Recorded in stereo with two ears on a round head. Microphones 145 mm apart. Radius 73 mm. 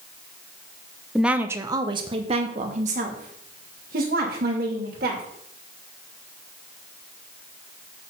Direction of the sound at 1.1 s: Centre (ahead or behind).